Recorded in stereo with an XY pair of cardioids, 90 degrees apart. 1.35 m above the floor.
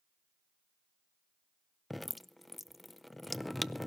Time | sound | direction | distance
1.9 | dripping | 10° left | 0.6 m